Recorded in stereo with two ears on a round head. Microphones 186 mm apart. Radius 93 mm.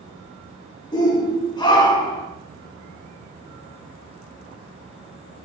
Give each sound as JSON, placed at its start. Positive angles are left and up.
{"t": 0.9, "sound": "a shout", "side_deg": 20, "distance_m": 1.5}